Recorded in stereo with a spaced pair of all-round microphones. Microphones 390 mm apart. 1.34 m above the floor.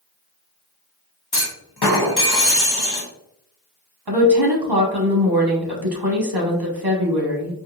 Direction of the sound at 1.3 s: 75° left (ahead or behind).